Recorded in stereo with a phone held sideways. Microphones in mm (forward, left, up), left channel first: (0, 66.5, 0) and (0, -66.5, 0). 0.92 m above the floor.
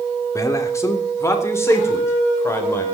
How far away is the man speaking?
About 2.5 m.